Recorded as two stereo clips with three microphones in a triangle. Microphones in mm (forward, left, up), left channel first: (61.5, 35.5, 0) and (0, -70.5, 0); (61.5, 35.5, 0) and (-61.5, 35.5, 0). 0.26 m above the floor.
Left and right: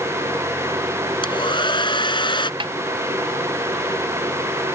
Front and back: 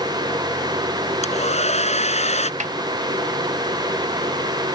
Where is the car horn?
No car horn in this recording.